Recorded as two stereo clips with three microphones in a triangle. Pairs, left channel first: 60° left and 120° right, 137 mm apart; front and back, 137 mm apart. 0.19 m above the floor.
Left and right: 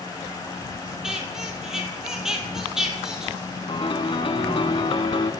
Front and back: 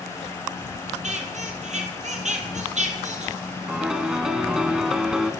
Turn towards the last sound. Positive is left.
turn(degrees=95)